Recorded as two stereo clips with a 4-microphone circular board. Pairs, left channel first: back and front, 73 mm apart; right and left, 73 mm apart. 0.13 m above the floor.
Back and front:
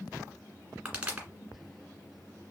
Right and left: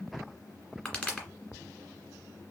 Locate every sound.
0.8 s a pop: 40° right, 1.8 m